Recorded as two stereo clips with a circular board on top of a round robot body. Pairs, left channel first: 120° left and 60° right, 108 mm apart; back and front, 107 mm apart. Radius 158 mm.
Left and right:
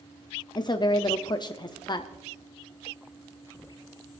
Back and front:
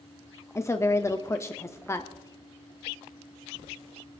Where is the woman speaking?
130° left, 0.9 m.